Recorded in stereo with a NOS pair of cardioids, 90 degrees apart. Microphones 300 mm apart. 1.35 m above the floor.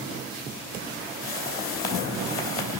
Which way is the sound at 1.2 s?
45° left.